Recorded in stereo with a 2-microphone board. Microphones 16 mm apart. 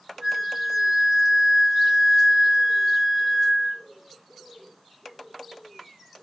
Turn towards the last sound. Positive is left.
turn(degrees=-50)  # may be behind; listen again after turning